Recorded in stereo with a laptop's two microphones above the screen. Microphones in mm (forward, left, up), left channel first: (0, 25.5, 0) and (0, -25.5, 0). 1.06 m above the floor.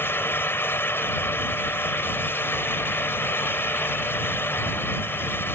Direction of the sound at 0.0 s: 50° left (ahead or behind).